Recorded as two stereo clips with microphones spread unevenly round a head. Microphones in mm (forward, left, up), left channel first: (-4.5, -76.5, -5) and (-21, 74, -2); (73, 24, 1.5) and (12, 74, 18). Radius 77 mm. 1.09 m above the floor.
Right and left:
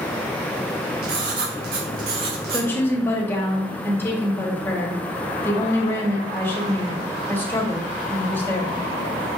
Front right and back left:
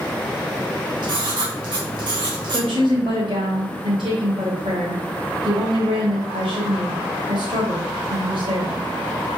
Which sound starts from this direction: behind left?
Writing, at 1.0 s.